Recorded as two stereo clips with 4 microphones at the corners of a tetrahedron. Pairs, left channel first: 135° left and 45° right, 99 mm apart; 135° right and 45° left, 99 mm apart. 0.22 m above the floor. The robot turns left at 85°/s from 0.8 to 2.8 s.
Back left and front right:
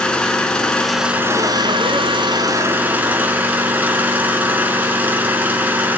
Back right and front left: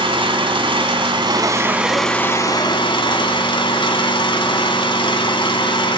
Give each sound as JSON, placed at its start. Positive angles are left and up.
{"t": 0.0, "sound": "an engine running", "azimuth_deg": 55, "distance_m": 1.4}